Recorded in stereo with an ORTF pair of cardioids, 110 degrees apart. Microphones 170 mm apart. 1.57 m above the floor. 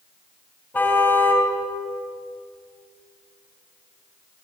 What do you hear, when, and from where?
0.7 s a car horn: 10° left, 5 m